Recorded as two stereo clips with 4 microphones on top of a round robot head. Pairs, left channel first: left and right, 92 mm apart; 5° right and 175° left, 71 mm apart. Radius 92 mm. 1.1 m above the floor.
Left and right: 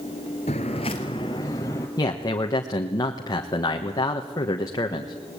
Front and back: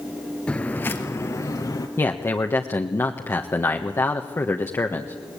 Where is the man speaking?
45° left, 1.5 m.